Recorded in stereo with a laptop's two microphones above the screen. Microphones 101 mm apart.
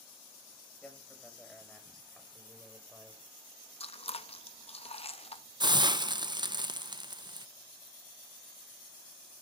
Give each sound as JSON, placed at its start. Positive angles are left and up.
{"t": 0.8, "sound": "a man speaking", "side_deg": 15, "distance_m": 7.0}
{"t": 3.8, "sound": "chewing", "side_deg": 85, "distance_m": 0.7}
{"t": 5.6, "sound": "a hiss", "side_deg": -45, "distance_m": 0.6}